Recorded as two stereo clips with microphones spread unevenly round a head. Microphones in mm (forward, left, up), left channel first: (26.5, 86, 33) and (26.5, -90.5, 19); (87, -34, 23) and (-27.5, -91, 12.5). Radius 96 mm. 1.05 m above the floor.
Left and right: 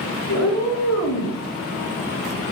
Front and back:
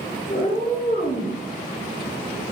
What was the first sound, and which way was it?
A cat meowing, 95° left.